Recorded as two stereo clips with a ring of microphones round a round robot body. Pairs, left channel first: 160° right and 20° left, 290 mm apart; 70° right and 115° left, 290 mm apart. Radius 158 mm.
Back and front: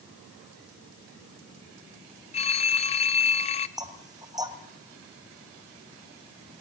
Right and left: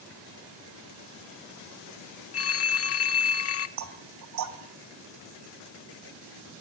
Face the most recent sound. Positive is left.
turn(degrees=100)